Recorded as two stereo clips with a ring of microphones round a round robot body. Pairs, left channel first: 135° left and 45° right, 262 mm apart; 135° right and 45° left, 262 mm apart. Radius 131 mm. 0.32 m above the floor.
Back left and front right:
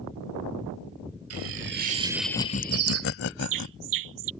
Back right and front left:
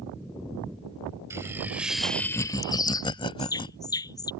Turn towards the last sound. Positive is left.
turn(degrees=-60)